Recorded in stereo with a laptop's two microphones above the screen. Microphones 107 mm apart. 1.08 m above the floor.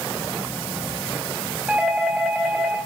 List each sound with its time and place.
1.7 s a doorbell: 10° right (ahead or behind), 7 m